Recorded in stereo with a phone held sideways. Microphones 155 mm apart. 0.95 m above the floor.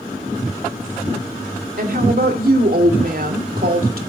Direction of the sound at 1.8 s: 75° right (ahead or behind).